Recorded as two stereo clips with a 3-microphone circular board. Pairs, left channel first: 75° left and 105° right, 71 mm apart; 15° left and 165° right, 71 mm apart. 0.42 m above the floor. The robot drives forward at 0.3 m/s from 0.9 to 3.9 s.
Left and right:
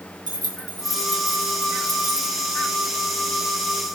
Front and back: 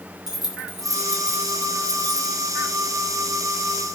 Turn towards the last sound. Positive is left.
turn(degrees=-110)